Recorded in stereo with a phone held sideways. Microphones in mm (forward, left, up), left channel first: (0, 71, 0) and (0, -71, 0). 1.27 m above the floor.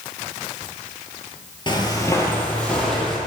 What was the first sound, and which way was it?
Footsteps, 35° left (ahead or behind).